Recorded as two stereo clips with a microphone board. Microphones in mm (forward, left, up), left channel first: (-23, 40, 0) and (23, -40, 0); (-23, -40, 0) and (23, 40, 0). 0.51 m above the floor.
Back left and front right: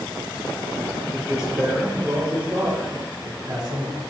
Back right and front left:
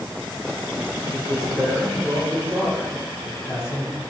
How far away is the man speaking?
About 2.5 m.